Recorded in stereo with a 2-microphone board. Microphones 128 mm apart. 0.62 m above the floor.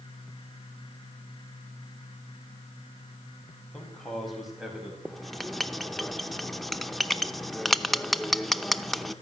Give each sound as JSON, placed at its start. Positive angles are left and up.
{"t": 3.7, "sound": "a man speaking", "side_deg": 5, "distance_m": 5.0}
{"t": 5.0, "sound": "writing", "side_deg": 0, "distance_m": 0.7}